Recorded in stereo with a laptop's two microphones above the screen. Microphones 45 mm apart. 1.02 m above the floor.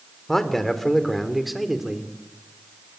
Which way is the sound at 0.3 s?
10° left (ahead or behind).